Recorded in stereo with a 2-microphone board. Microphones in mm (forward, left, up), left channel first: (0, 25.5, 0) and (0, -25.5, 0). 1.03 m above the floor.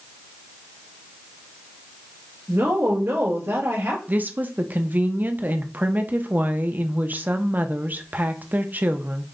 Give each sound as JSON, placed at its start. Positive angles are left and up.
{"t": 2.5, "sound": "a woman speaking", "side_deg": -55, "distance_m": 1.7}
{"t": 4.1, "sound": "a woman speaking", "side_deg": -35, "distance_m": 0.6}